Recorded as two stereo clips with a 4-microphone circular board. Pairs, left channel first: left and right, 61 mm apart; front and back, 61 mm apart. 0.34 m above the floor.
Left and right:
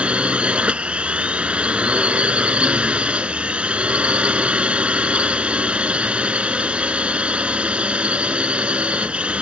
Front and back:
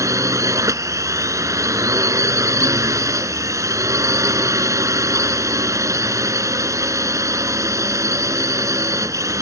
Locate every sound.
0.0 s a drone: 160° right